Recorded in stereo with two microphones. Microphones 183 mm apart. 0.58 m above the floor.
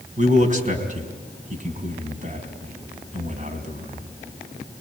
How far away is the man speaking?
About 4 m.